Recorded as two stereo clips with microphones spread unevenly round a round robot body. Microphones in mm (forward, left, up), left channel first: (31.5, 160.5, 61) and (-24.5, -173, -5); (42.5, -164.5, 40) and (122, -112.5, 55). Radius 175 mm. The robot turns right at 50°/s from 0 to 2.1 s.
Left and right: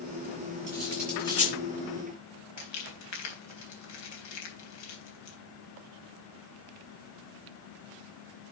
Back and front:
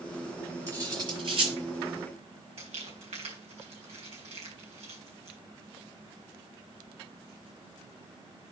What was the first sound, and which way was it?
Cutlery clinking, 30° right.